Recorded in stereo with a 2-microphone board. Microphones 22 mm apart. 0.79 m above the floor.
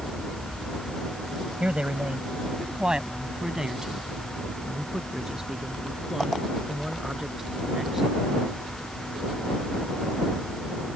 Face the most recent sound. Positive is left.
turn(degrees=-15)  # may be behind; listen again after turning